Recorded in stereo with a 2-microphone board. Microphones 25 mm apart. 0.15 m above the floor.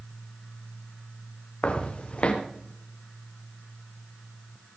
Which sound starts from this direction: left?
Footsteps, at 1.6 s.